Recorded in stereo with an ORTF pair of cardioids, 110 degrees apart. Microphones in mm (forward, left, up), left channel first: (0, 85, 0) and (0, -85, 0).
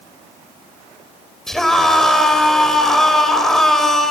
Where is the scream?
Straight ahead, 4.5 m.